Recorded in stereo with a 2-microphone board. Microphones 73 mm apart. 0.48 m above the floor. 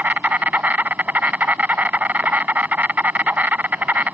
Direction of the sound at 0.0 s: 25° right (ahead or behind).